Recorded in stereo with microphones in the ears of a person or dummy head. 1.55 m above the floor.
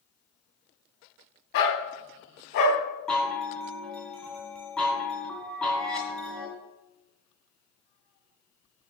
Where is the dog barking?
70° left (ahead or behind), 3 m.